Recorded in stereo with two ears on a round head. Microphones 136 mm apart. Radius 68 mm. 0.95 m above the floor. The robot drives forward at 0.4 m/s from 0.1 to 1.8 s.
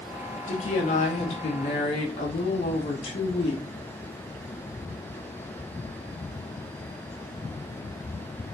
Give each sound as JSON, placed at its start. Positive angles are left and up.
{"t": 0.5, "sound": "a woman speaking", "side_deg": 50, "distance_m": 1.5}